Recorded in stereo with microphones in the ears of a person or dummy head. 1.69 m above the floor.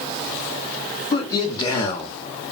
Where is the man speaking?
30° left (ahead or behind), 1.9 m; by 2.2 s 15° left (ahead or behind), 0.7 m.